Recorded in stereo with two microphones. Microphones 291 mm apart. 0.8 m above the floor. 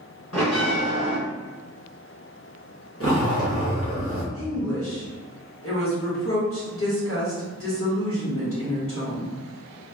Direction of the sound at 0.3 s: 65° left (ahead or behind).